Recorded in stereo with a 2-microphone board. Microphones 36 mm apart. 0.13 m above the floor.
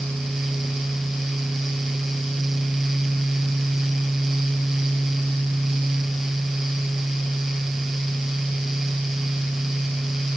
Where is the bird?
No bird in this recording.